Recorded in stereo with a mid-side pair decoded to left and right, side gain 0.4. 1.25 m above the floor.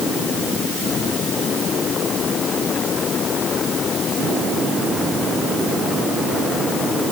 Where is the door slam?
I don't hear a door slam.